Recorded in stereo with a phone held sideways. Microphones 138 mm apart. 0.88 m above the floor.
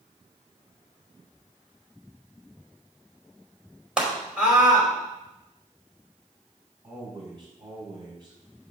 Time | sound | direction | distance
4.0 | a scream | 5° right (ahead or behind) | 4.5 m
6.8 | a man speaking | 35° right (ahead or behind) | 5.5 m